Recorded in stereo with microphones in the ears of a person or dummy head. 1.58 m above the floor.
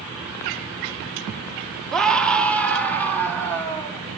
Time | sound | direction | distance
1.9 | a scream | 5° left (ahead or behind) | 1.3 m